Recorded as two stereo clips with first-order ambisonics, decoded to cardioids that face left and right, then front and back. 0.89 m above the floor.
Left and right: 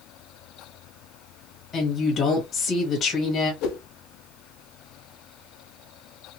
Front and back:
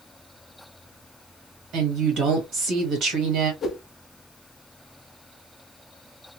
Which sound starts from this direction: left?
A whoosh, at 3.6 s.